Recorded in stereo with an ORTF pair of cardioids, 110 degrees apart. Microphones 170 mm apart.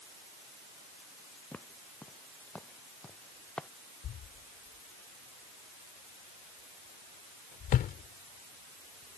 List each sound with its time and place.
1.5 s footsteps: 10° left; by 3.7 s 5° left
4.0 s a thud: 60° left